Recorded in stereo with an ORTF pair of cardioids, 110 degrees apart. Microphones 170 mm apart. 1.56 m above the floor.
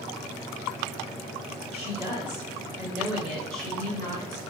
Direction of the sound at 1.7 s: 40° right.